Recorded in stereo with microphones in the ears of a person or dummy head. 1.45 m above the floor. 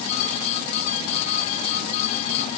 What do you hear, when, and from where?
Only background noise.